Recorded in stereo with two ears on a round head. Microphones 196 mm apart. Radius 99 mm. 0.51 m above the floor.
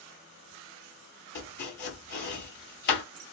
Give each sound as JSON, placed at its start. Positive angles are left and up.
{"t": 1.4, "sound": "chopping", "side_deg": 50, "distance_m": 1.9}